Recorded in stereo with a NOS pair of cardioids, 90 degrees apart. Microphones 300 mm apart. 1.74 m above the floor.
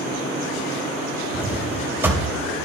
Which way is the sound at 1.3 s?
5° right.